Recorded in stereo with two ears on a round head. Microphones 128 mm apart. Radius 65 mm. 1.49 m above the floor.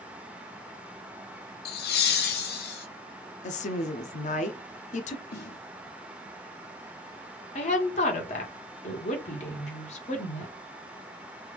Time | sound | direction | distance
1.6 | laughter | 75° left (ahead or behind) | 0.5 m
3.4 | a woman speaking | 55° left (ahead or behind) | 0.5 m
5.3 | a snare drum | 80° left | 1.3 m
7.5 | a woman speaking | 45° left (ahead or behind) | 1.2 m